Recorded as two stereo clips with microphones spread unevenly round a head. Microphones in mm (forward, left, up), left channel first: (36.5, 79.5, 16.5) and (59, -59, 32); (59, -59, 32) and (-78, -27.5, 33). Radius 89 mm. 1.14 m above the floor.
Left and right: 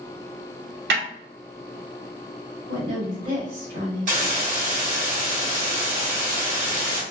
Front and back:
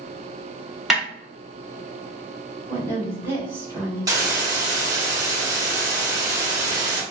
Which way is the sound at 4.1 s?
130° right.